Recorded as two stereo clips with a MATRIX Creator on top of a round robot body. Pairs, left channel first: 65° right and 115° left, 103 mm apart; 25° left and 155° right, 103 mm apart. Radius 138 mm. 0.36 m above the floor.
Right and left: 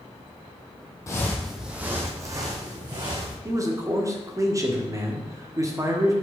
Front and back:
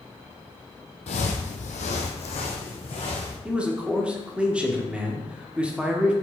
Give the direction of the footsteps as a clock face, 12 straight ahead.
12 o'clock.